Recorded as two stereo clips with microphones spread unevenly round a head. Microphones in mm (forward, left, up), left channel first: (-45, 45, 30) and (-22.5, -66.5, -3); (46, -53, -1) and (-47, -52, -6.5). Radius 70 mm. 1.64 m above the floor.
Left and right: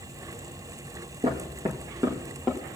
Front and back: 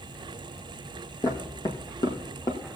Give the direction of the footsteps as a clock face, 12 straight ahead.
1 o'clock.